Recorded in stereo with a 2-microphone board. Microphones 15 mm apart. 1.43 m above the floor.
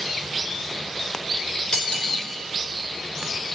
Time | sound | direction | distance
1.7 | cutlery clinking | 55° left (ahead or behind) | 3.5 m